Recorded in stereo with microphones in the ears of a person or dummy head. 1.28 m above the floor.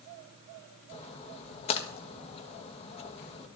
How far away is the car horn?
No car horn in this recording.